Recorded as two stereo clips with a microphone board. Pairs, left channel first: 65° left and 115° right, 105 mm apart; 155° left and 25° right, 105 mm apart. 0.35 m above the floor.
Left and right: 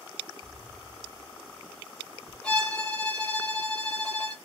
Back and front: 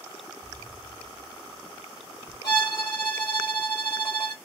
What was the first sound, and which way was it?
An explosion, 115° right.